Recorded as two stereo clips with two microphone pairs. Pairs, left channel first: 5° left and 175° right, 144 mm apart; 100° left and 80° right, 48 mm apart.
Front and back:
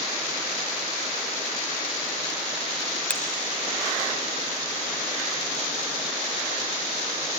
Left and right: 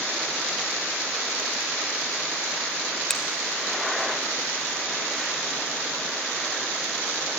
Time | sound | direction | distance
3.1 | a finger snap | 55° left | 1.1 m